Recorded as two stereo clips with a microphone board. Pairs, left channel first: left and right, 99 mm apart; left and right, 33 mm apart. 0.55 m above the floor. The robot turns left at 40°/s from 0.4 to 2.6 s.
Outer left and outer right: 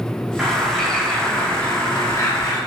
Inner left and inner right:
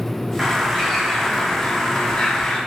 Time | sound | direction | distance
0.4 | a bird | 170° right | 0.6 m